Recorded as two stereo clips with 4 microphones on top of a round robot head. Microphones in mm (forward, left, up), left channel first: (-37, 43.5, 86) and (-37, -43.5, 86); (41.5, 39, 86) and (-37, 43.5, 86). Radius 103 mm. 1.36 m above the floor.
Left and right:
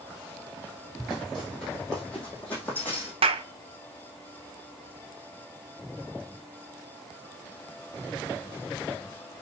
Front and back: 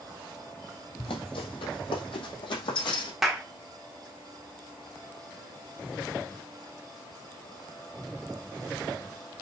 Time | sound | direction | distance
1.0 | running footsteps | straight ahead | 3.5 m
3.2 | a clap | 95° right | 0.9 m